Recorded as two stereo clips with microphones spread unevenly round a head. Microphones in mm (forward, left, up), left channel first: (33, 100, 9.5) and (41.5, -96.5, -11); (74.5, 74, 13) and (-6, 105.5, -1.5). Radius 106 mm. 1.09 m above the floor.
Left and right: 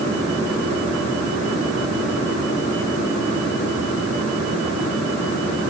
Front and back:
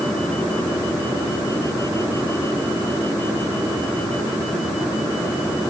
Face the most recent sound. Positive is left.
No sound to turn to.